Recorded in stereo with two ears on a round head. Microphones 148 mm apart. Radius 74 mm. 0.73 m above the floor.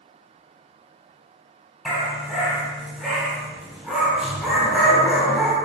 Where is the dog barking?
Centre (ahead or behind), 1.9 m.